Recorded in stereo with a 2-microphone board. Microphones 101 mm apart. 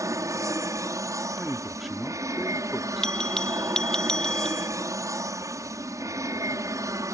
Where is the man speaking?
Centre (ahead or behind).